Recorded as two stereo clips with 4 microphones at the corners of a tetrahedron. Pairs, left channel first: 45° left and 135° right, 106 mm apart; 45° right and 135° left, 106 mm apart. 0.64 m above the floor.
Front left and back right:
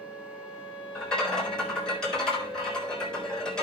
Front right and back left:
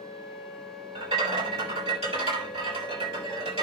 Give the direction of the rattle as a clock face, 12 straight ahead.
8 o'clock.